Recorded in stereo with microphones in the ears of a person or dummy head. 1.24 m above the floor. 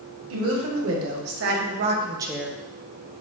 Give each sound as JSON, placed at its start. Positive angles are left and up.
{"t": 0.3, "sound": "a woman speaking", "side_deg": -75, "distance_m": 1.3}